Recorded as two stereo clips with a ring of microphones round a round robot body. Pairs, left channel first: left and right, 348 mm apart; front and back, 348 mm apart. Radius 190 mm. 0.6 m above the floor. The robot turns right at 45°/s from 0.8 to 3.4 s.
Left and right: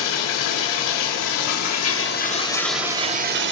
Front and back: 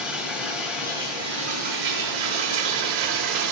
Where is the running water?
95° left, 0.7 m; by 3.5 s 150° right, 0.7 m.